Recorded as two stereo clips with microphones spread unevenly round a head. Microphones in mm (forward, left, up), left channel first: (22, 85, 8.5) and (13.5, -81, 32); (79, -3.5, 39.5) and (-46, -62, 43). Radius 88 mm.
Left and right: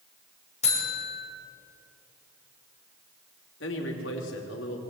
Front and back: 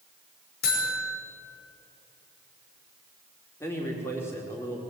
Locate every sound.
0.6 s a buzzer: 35° left, 5.5 m
3.6 s a man speaking: 100° left, 4 m